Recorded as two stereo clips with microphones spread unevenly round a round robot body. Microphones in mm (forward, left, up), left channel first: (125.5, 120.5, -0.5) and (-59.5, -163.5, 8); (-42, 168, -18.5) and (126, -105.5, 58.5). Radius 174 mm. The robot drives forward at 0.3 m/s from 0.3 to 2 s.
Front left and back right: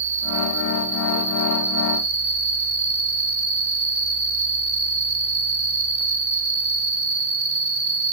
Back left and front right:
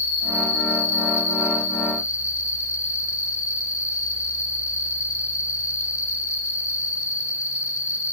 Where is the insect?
Straight behind, 2.5 m.